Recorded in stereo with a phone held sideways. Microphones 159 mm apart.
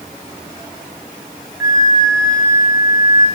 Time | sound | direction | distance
1.6 | a flute | 80° left | 6.5 m